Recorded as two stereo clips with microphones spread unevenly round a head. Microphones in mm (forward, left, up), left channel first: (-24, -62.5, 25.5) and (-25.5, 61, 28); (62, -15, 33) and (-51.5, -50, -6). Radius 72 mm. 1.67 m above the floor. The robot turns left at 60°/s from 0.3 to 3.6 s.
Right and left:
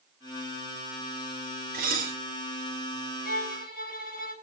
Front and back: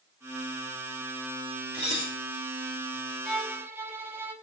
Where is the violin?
65° right, 4.5 m; by 4.3 s 85° right, 4.5 m.